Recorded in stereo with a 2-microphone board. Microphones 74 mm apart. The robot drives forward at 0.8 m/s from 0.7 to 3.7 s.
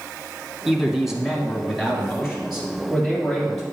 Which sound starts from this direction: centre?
A man speaking, at 0.7 s.